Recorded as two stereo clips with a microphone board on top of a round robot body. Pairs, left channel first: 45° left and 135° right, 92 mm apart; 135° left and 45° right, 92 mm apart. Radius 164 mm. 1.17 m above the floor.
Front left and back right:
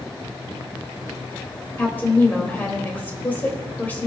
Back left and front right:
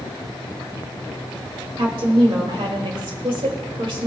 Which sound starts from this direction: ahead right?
A woman speaking, at 1.8 s.